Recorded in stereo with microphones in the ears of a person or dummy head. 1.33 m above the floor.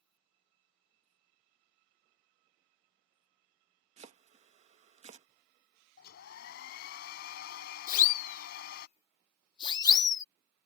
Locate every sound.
4.0 s chopping: 35° right (ahead or behind)
6.0 s a hair dryer: 60° left (ahead or behind)
7.9 s a siren: 55° left (ahead or behind); by 10.2 s 15° left (ahead or behind)